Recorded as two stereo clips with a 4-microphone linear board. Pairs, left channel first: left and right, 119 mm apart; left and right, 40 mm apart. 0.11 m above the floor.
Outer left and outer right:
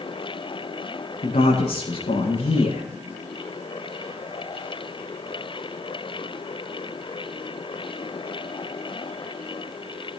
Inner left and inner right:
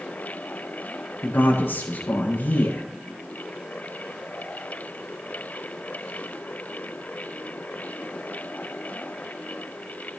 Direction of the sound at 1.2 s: 70° left (ahead or behind).